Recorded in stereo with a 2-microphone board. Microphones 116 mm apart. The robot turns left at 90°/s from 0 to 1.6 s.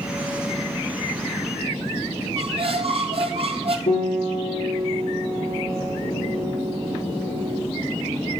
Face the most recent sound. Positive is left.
turn(degrees=80)